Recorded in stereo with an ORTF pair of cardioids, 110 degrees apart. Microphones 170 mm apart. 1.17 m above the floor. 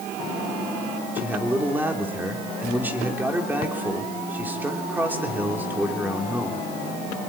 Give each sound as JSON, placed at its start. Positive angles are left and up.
{"t": 1.1, "sound": "a man speaking", "azimuth_deg": -10, "distance_m": 3.5}